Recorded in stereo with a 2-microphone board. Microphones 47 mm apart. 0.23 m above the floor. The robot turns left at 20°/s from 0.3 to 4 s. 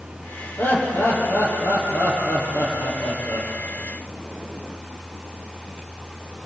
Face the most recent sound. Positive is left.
turn(degrees=75)